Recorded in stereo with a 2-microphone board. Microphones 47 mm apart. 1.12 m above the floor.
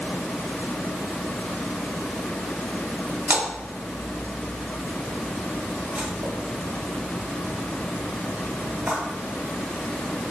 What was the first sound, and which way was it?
A splash, 50° right (ahead or behind).